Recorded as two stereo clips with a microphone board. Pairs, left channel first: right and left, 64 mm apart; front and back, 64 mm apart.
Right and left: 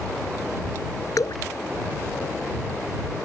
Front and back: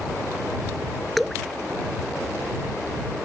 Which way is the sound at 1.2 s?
85° right.